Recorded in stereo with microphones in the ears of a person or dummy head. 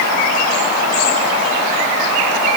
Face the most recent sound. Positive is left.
No sound to turn to.